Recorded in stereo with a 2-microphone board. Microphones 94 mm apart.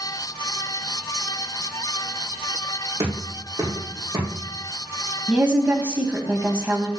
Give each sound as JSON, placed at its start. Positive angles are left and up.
{"t": 3.0, "sound": "knocking", "side_deg": -40, "distance_m": 5.5}
{"t": 5.3, "sound": "a woman speaking", "side_deg": -15, "distance_m": 1.4}